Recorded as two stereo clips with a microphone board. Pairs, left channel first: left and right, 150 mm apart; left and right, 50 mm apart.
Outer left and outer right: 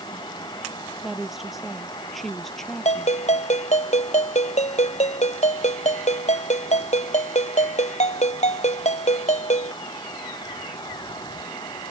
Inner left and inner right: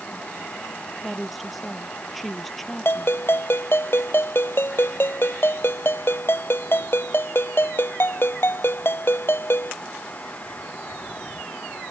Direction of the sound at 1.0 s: 5° right (ahead or behind).